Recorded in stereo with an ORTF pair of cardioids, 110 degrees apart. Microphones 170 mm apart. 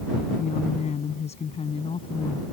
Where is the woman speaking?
45° left; by 2.4 s 30° left.